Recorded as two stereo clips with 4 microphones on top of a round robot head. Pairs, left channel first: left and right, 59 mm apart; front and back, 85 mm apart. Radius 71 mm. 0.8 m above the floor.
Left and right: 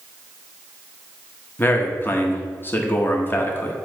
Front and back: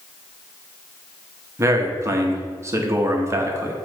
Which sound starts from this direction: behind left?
A man speaking, at 1.6 s.